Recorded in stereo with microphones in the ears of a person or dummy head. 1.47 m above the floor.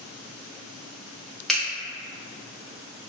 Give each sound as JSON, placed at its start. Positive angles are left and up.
{"t": 1.5, "sound": "a finger snap", "side_deg": 5, "distance_m": 0.6}